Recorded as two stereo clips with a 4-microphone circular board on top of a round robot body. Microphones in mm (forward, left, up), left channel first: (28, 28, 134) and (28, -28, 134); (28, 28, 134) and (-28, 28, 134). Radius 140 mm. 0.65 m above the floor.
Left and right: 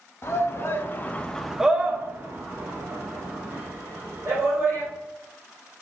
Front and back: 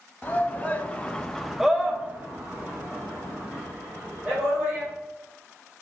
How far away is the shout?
About 0.9 m.